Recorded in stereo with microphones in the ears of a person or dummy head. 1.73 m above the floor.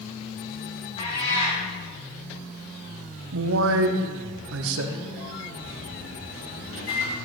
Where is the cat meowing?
35° left (ahead or behind), 2.5 m.